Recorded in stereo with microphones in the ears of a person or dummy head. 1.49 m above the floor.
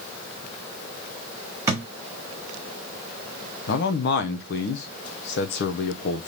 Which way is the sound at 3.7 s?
60° left (ahead or behind).